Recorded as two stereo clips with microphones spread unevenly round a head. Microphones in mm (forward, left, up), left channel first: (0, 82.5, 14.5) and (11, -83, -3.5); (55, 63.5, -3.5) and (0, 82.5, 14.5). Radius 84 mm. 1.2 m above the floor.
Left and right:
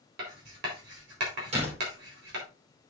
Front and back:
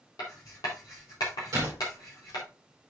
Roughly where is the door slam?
Behind right.